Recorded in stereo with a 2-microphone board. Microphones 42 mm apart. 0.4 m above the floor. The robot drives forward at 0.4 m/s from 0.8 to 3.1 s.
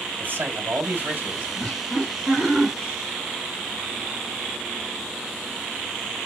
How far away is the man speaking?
About 1.9 m.